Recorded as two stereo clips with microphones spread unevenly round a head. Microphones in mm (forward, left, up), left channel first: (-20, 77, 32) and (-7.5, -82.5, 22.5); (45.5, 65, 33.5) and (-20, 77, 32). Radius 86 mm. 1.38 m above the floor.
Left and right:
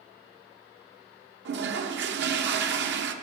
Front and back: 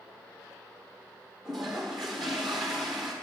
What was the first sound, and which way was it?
A toilet flushing, 100° right.